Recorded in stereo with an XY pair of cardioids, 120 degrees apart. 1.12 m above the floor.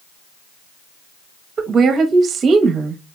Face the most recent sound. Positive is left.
turn(degrees=-45)